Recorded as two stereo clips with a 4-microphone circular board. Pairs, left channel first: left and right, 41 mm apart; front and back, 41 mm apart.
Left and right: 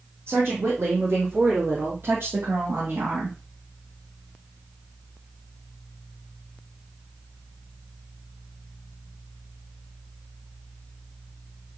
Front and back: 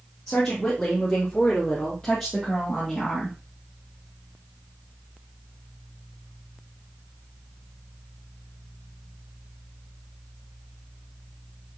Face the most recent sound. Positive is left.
turn(degrees=-75)